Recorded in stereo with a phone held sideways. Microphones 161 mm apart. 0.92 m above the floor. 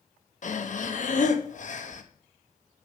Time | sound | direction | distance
0.4 | breathing | 55° left (ahead or behind) | 0.8 m